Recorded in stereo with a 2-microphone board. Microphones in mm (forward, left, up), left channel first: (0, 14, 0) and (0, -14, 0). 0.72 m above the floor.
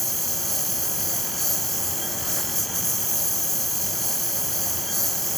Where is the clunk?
I don't hear a clunk.